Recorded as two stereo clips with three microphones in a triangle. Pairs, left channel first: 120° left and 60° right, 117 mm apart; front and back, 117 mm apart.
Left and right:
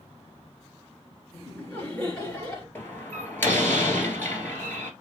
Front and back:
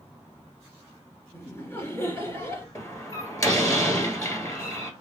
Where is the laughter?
50° left, 2.0 m.